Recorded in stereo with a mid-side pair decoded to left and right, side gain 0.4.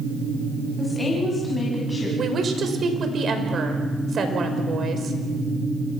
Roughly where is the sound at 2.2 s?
Ahead right.